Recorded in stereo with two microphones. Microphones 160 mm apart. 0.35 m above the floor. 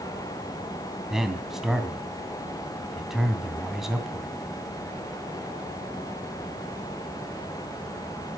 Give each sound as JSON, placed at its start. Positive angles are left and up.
{"t": 1.1, "sound": "a man speaking", "side_deg": 0, "distance_m": 2.5}